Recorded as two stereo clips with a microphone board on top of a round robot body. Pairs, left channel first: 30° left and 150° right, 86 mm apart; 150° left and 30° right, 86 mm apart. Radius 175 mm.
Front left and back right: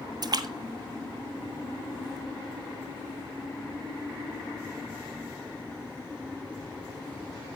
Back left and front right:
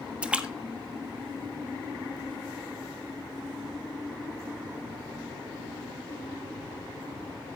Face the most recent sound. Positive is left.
turn(degrees=-110)